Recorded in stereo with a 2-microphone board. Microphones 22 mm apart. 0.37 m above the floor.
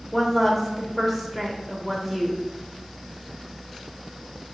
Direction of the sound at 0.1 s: 5° left (ahead or behind).